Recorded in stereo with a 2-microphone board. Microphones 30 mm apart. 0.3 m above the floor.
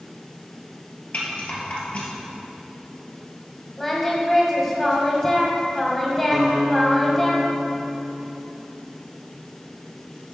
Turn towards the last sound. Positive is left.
turn(degrees=-5)  # may be behind; listen again after turning